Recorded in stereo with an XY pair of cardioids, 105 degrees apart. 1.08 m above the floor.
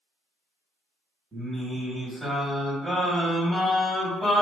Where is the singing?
10° right, 2.0 m.